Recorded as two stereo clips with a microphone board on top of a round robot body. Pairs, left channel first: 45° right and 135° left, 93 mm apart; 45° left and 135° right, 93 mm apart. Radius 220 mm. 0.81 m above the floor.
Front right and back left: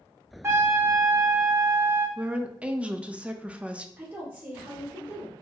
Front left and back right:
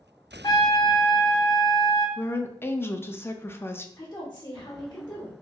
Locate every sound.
0.4 s a trumpet: 75° left, 1.0 m
2.2 s a woman speaking: 75° left, 0.6 m
4.0 s a woman speaking: 85° left, 1.2 m